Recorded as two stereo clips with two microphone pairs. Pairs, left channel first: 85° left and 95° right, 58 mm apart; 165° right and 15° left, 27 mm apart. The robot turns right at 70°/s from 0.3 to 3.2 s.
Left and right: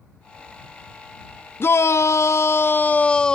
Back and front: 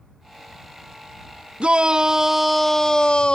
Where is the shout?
45° left; by 3.3 s 155° left.